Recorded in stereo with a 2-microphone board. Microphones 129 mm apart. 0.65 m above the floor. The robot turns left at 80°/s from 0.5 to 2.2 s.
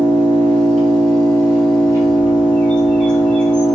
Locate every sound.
0.0 s an engine running: 90° right, 5 m; by 3.8 s 135° left, 5 m
2.0 s a bird: 25° left (ahead or behind), 2 m; by 3.6 s 5° left (ahead or behind), 2 m